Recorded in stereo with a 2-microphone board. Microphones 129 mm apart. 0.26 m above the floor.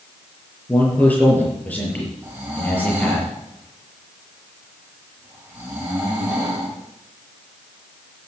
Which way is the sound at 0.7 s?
15° left (ahead or behind).